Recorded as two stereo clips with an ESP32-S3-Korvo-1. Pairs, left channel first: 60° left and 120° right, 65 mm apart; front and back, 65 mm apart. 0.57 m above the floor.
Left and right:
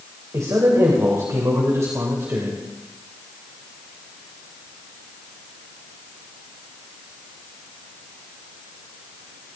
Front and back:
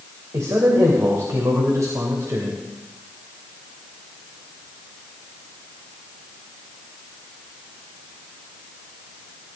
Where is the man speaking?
150° right, 3 m.